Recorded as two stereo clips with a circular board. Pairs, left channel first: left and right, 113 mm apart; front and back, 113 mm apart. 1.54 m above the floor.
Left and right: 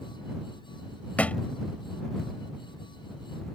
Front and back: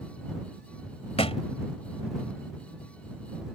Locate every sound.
1.2 s a thud: 15° left